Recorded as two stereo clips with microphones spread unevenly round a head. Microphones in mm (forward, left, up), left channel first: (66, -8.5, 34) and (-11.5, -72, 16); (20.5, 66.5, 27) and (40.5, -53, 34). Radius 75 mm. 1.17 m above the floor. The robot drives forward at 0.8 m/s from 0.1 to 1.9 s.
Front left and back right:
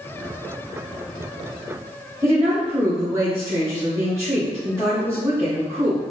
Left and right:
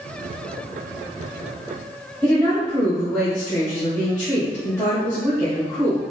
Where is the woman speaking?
165° left, 0.9 m.